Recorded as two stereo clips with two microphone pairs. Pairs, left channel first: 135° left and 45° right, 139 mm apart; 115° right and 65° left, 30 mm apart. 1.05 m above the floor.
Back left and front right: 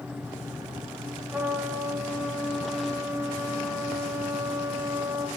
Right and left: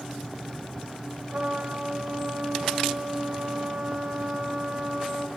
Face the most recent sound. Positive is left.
turn(degrees=35)